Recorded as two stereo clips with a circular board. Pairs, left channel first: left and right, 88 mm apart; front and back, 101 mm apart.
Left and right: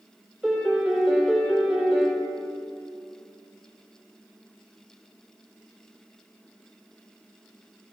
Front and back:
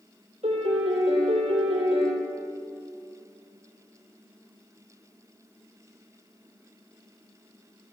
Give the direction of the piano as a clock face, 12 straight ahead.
6 o'clock.